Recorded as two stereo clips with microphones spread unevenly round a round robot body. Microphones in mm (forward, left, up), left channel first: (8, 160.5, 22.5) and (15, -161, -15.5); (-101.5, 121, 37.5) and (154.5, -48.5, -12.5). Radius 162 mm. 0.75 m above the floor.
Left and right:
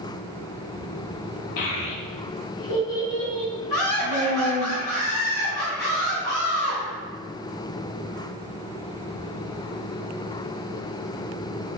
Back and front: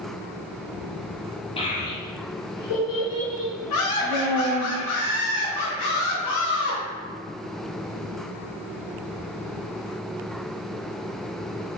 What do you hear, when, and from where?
1.6 s a child speaking: 70° left, 0.7 m; by 4.7 s 150° left, 1.6 m
3.7 s laughter: 125° left, 1.4 m